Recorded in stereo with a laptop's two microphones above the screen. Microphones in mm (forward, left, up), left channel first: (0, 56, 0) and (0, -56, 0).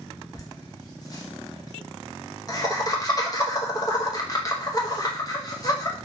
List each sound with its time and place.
0.3 s laughter: 30° left (ahead or behind), 1.0 m